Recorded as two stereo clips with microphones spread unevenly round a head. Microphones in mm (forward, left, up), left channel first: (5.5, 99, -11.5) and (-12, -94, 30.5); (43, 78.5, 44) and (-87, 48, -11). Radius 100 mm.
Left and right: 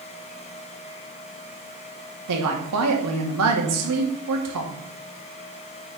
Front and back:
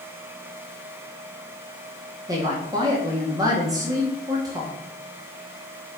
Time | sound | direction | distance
2.3 | a woman speaking | 105° right | 2 m